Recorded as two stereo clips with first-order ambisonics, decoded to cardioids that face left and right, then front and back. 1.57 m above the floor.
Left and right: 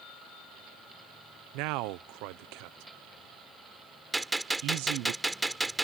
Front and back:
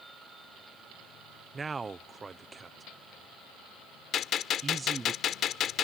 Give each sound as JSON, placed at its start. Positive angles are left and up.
{"t": 1.5, "sound": "a man speaking", "azimuth_deg": -105}
{"t": 4.1, "sound": "a gunshot", "azimuth_deg": -10}